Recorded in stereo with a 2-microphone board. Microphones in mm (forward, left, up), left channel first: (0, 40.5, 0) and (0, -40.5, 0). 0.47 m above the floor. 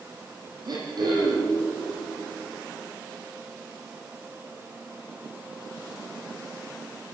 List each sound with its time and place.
0.7 s throat clearing: 60° right (ahead or behind), 7 m